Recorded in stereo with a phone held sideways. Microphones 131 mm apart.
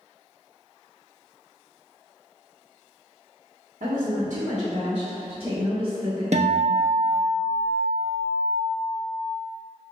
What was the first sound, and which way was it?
A woman speaking, 80° right.